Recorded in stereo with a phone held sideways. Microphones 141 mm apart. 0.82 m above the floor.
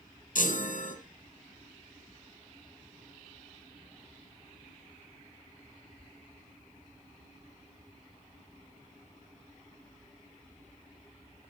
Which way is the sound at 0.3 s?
75° left (ahead or behind).